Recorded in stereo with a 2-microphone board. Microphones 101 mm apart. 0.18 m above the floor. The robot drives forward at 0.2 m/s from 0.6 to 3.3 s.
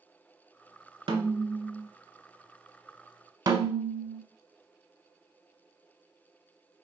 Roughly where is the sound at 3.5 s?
Right.